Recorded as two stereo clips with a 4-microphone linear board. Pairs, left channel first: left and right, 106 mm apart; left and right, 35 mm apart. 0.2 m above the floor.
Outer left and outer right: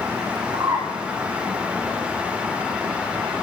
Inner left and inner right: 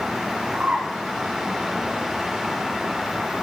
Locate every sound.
0.5 s a bird: 20° right (ahead or behind), 7.5 m